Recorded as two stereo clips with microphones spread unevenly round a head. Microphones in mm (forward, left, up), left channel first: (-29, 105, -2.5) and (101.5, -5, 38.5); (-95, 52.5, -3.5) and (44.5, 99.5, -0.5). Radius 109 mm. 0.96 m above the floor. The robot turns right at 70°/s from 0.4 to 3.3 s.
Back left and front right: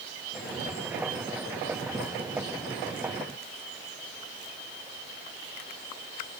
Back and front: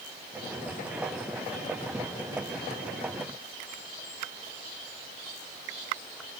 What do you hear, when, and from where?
Only background noise.